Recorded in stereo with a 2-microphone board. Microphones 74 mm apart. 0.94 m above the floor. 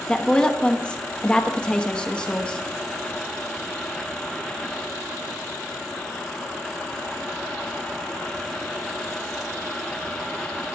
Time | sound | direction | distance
0.1 | a woman speaking | 15° left (ahead or behind) | 1.1 m